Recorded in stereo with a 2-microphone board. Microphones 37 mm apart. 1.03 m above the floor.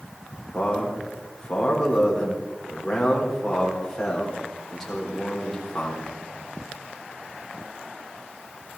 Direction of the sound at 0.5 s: 10° left (ahead or behind).